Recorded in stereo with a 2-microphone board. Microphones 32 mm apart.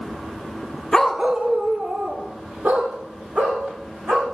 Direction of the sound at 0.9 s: 20° left (ahead or behind).